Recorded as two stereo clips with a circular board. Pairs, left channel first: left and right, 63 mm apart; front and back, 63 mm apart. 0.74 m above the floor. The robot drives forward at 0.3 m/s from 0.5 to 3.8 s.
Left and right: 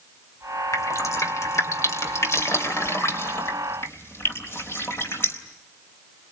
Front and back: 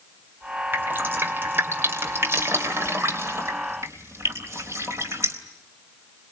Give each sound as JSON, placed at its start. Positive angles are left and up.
{"t": 0.7, "sound": "dripping", "azimuth_deg": 125, "distance_m": 2.5}